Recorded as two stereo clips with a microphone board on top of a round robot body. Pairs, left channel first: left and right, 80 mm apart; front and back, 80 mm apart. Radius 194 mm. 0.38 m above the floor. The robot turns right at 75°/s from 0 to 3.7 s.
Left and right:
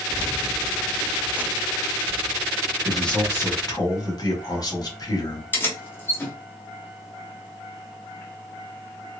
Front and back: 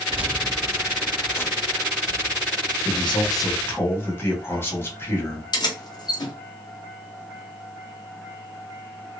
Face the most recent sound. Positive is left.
turn(degrees=25)